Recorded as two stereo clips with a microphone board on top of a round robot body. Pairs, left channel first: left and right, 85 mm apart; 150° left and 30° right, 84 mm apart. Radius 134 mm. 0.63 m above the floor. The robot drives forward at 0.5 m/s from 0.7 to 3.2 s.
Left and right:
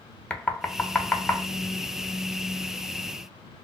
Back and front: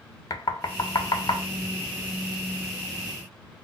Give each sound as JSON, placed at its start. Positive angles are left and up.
{"t": 0.3, "sound": "knocking", "azimuth_deg": 160, "distance_m": 0.8}